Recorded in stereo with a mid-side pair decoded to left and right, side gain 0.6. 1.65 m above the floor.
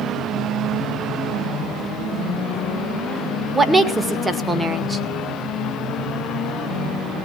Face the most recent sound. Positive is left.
turn(degrees=-15)